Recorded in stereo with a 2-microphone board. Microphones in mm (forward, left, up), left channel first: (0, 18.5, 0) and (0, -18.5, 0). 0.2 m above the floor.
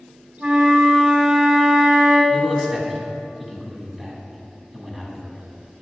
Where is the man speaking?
10° right (ahead or behind), 1.3 m.